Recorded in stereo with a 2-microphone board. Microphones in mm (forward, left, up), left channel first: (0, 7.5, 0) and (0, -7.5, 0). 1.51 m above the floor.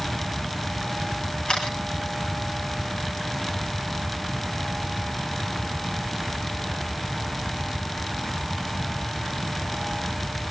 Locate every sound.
1.5 s a camera shutter: 80° left, 5 m